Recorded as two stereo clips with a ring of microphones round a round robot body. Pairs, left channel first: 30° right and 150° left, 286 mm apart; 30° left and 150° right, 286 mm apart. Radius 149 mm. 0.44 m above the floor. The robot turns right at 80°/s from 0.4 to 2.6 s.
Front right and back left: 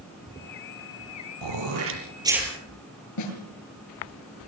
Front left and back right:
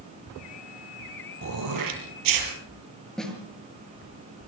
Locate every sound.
1.4 s throat clearing: 160° left, 6 m; by 2.5 s 115° right, 6 m
3.2 s a snare drum: 60° right, 7 m